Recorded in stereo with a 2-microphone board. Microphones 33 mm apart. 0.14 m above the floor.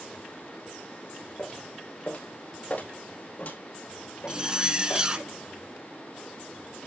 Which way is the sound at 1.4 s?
45° left (ahead or behind).